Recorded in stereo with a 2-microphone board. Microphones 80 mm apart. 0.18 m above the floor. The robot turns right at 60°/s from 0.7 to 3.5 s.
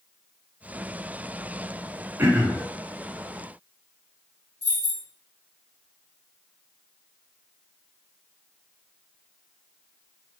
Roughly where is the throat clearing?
Right.